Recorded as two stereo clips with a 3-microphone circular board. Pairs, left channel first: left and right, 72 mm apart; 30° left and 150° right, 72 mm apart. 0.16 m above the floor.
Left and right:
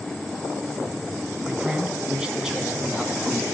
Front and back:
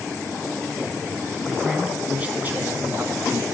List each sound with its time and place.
1.4 s a man speaking: 70° right, 1.0 m; by 3.4 s straight behind, 1.5 m